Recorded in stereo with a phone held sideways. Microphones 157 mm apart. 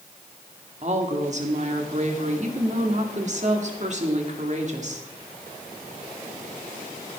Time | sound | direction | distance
0.8 | a woman speaking | 50° right (ahead or behind) | 2 m